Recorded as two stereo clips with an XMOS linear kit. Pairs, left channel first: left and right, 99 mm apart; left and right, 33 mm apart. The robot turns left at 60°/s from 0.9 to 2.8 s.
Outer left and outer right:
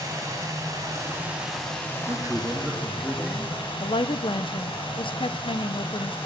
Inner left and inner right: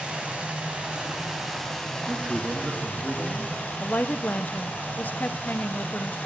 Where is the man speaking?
140° right, 1.8 m; by 3.7 s 175° left, 1.8 m.